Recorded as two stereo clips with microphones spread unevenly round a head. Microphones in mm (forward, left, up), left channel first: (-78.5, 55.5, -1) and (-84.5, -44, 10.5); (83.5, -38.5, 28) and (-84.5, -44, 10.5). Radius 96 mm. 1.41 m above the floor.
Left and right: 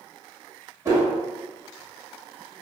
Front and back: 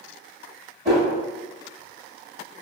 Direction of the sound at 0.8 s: 135° right.